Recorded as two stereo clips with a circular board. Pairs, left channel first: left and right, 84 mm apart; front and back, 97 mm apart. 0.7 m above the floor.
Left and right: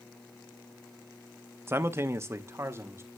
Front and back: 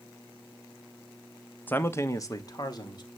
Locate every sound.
1.7 s a man speaking: 60° right, 0.7 m; by 3.1 s 35° right, 1.4 m